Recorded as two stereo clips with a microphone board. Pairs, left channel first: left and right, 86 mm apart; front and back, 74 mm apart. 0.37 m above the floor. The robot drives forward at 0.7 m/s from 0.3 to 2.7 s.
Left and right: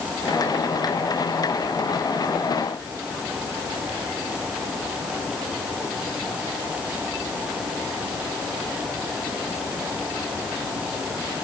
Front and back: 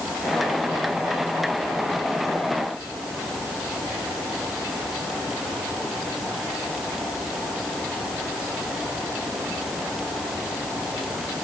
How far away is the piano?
No piano in this recording.